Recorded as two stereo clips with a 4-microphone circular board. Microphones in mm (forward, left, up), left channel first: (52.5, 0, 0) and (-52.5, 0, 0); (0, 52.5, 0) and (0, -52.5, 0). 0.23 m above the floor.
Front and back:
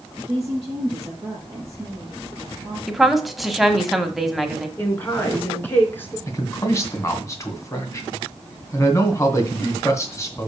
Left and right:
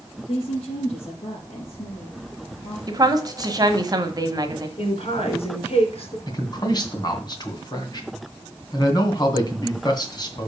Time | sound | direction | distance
0.3 | a woman speaking | 120° left | 5 m
2.9 | a woman speaking | 90° right | 1.3 m
4.8 | a woman speaking | 70° left | 3 m
6.3 | a man speaking | 55° left | 2 m